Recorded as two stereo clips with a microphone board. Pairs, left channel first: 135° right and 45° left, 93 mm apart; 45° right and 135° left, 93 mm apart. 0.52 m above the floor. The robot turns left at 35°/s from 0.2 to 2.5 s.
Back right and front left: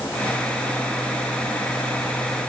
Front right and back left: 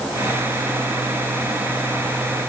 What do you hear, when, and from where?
Only background noise.